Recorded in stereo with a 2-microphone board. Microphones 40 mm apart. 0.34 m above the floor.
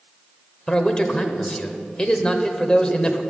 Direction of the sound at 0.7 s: 20° left (ahead or behind).